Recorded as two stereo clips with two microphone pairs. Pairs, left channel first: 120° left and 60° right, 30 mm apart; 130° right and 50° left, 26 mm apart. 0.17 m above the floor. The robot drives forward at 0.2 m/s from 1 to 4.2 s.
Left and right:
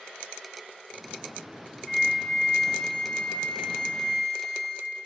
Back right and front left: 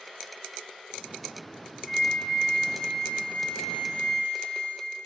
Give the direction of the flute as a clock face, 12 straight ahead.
6 o'clock.